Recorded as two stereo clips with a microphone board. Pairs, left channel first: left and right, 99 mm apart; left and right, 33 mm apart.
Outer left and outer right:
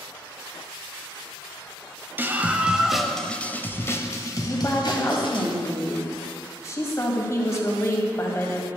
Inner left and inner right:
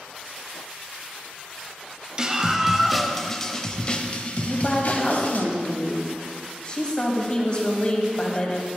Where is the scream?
20° right (ahead or behind), 1.3 m; by 5.5 s 55° left (ahead or behind), 1.8 m.